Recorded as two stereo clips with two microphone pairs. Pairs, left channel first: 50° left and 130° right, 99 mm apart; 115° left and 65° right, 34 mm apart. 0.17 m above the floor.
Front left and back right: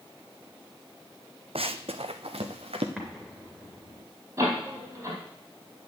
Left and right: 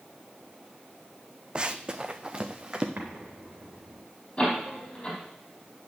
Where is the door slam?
175° left, 4 m.